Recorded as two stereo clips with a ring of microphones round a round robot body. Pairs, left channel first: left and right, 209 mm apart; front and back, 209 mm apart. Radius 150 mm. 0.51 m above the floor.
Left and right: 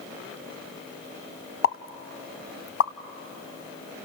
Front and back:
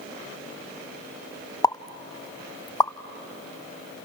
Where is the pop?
75° left, 0.9 m.